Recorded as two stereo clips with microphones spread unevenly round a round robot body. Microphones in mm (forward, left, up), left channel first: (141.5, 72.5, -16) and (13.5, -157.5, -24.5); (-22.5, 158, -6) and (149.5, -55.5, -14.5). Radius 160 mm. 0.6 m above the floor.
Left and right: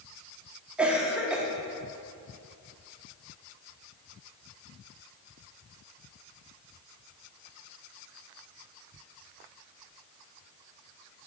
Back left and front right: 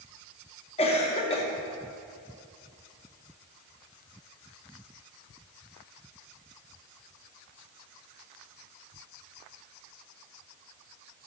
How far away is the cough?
About 0.6 m.